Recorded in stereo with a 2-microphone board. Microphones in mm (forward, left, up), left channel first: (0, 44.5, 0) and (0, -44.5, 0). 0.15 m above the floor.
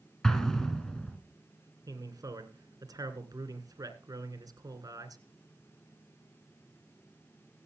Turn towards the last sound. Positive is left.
turn(degrees=-45)  # may be behind; listen again after turning